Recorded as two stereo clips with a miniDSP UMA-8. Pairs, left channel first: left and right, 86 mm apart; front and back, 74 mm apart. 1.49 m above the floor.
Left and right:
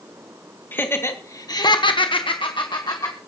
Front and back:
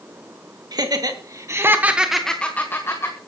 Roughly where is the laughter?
Behind left.